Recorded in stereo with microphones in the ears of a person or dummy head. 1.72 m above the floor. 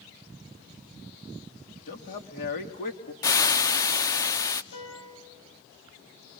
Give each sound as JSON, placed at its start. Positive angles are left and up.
{"t": 1.9, "sound": "a man speaking", "side_deg": 50, "distance_m": 3.0}
{"t": 3.2, "sound": "frying", "side_deg": 15, "distance_m": 0.7}
{"t": 4.7, "sound": "a piano", "side_deg": 75, "distance_m": 6.0}